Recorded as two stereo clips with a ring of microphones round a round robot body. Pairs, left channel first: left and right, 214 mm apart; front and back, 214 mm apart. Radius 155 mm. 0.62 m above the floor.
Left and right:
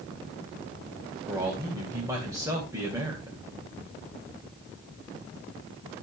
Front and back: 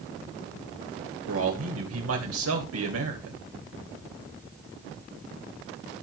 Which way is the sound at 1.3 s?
170° right.